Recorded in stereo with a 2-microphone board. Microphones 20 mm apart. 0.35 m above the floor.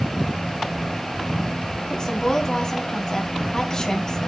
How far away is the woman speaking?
About 3 m.